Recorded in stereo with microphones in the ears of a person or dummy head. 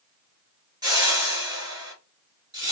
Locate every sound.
0.8 s a whoosh: 20° right (ahead or behind), 1.1 m